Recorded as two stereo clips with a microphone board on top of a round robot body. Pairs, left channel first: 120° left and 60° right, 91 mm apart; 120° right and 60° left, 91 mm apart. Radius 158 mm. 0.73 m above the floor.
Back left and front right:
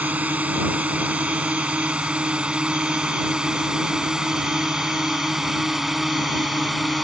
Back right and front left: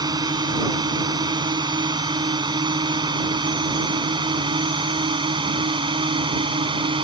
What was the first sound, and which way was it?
A drone, 15° left.